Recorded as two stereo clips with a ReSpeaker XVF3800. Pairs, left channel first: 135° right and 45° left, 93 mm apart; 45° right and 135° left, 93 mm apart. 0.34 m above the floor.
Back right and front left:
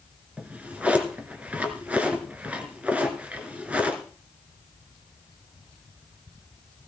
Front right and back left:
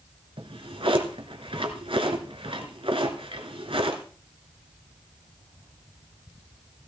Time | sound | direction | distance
0.4 | a drawer | 120° left | 1.3 m